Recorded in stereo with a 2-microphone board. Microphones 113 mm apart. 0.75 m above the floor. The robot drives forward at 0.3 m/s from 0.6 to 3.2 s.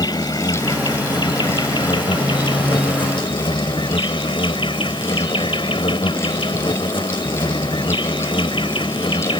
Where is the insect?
40° left (ahead or behind); by 9.4 s 50° left (ahead or behind).